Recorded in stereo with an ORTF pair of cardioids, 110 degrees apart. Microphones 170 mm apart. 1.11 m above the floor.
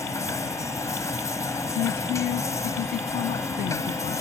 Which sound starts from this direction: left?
A woman speaking, at 1.8 s.